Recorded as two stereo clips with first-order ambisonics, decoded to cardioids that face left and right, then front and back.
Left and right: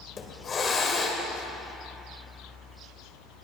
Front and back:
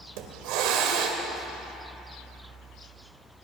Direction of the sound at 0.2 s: 160° left.